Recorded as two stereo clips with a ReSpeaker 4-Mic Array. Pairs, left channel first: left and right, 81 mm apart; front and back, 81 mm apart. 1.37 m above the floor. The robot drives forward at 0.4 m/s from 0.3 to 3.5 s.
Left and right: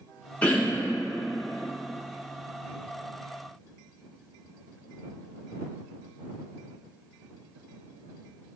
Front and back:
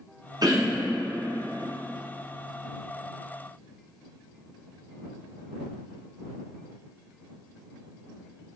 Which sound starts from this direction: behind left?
Throat clearing, at 0.4 s.